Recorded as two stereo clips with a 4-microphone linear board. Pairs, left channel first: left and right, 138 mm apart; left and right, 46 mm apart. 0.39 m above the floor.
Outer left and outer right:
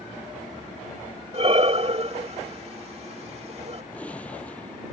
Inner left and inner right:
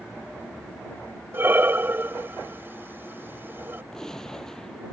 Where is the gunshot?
10° left (ahead or behind).